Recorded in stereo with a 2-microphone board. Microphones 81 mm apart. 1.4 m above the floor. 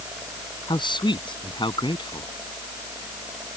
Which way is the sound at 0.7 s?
75° left (ahead or behind).